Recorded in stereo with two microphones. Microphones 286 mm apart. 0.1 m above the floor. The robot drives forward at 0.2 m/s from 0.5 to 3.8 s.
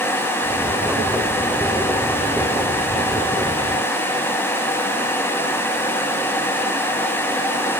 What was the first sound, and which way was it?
Only background noise.